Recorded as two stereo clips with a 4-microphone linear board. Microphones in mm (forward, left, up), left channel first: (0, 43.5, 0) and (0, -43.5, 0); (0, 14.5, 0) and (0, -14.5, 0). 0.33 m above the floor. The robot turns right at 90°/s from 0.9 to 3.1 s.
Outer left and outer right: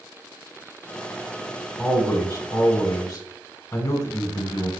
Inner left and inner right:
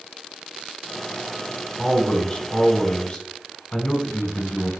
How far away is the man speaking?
About 0.9 m.